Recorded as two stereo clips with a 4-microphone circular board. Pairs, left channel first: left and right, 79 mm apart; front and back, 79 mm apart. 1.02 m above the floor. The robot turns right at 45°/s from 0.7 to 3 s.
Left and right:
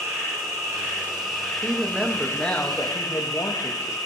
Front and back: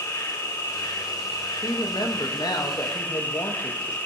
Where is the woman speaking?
25° right, 1.5 m; by 4.0 s 40° left, 1.5 m.